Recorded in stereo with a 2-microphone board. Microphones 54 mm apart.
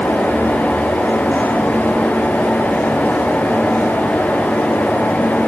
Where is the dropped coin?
No dropped coin in this recording.